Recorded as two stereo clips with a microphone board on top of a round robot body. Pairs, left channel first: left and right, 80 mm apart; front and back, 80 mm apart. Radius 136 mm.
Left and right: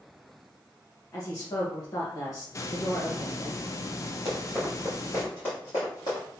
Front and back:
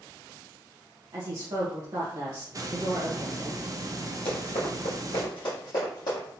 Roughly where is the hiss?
Behind left.